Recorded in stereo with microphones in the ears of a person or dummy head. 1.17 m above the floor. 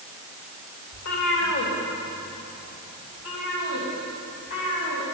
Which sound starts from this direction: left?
A cat meowing, at 0.9 s.